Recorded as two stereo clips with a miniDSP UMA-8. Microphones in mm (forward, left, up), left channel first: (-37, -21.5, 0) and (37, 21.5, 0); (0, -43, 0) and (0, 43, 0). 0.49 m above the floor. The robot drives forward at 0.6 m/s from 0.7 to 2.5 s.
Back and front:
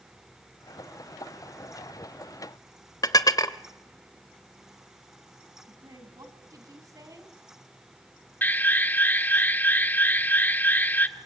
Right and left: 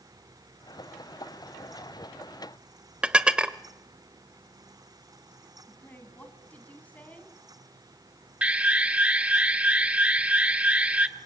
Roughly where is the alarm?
Behind left.